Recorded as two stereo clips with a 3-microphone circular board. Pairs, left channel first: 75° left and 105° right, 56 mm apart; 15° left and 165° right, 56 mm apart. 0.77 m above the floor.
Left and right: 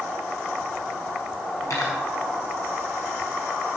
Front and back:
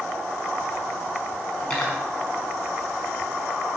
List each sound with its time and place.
1.6 s cutlery clinking: 90° left, 5 m